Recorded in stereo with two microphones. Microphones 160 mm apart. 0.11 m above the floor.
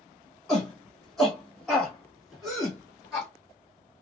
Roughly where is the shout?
Centre.